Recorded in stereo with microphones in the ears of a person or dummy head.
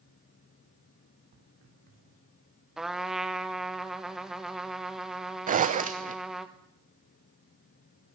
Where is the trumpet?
Centre (ahead or behind), 1.2 m.